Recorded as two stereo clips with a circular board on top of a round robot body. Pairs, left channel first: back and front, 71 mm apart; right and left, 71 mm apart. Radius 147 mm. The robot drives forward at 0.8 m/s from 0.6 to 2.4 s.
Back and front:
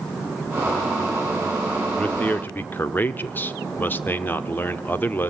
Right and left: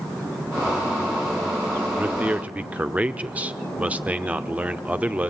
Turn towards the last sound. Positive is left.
turn(degrees=145)